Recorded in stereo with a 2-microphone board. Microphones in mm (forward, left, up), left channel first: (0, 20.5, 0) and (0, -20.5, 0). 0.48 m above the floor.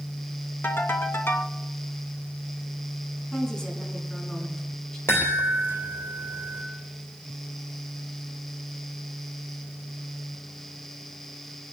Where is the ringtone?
70° left (ahead or behind), 1.9 m.